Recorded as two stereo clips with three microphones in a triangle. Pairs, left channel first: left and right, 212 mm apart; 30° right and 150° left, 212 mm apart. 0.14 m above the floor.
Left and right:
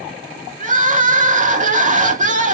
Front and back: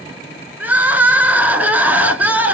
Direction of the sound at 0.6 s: 130° right.